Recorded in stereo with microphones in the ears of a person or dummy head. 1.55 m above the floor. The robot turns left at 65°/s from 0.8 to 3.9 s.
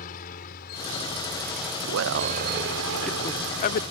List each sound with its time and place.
0.0 s a helicopter: 50° left (ahead or behind); by 3.9 s 30° right (ahead or behind)
1.8 s a man speaking: 105° right; by 3.8 s 125° left